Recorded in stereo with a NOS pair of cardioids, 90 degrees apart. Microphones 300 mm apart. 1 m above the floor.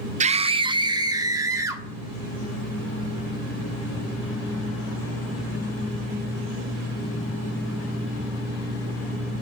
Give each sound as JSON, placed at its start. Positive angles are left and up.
{"t": 0.2, "sound": "a scream", "azimuth_deg": -25, "distance_m": 0.6}